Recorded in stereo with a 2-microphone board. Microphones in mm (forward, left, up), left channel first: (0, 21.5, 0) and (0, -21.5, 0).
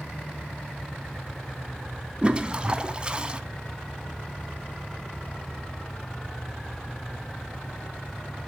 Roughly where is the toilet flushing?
Right.